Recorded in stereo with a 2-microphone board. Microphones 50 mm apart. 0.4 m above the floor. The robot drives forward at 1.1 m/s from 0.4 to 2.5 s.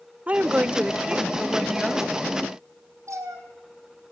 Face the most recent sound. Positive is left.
turn(degrees=-75)  # may be behind; listen again after turning